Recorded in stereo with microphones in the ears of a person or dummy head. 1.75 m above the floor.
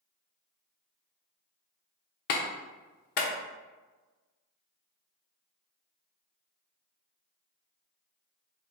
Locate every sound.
2.3 s a clap: 50° left (ahead or behind), 0.7 m